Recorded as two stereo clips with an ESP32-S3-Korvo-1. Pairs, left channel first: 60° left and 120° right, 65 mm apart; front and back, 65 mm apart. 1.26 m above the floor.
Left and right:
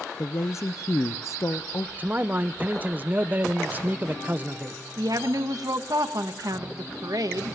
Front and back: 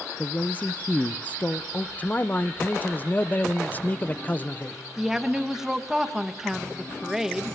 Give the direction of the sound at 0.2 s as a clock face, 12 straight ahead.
10 o'clock.